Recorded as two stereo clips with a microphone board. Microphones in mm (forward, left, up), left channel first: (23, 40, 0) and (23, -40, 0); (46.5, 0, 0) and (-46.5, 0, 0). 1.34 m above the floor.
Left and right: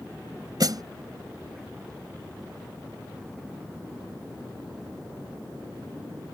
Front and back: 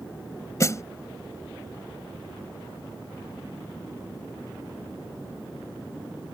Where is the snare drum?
55° right.